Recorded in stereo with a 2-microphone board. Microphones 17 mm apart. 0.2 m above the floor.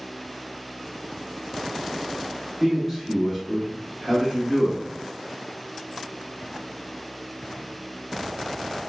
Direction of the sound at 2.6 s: 5° left (ahead or behind).